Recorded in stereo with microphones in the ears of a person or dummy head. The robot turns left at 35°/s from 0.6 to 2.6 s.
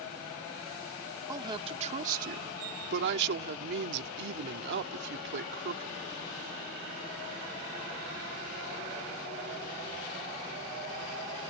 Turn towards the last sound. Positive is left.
turn(degrees=-70)